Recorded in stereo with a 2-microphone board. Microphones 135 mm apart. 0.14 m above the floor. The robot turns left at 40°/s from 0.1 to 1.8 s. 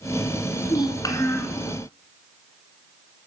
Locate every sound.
0.7 s a child speaking: 55° left, 1.2 m; by 1.6 s 20° left, 1.2 m